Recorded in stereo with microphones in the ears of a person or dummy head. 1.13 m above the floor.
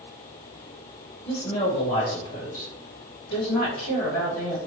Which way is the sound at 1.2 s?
20° left (ahead or behind).